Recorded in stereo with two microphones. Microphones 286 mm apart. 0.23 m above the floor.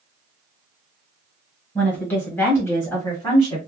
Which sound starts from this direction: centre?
A woman speaking, at 1.8 s.